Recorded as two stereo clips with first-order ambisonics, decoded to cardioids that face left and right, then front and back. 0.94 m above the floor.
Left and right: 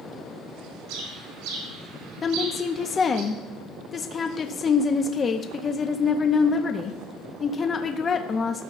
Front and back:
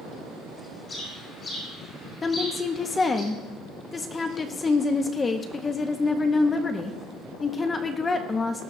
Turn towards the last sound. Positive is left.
turn(degrees=50)